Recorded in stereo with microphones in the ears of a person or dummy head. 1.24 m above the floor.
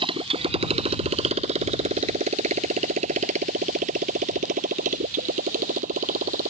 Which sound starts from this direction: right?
A motorcycle, at 0.0 s.